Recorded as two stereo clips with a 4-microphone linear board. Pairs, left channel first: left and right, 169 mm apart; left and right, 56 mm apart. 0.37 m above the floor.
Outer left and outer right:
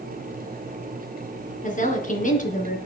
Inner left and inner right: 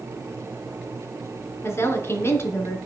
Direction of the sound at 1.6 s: 50° left (ahead or behind).